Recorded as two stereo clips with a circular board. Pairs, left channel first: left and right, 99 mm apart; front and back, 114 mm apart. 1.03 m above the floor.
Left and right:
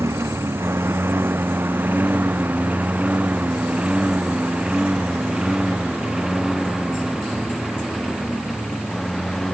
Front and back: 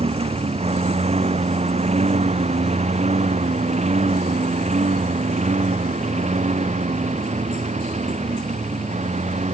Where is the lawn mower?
150° right; by 9.6 s straight behind.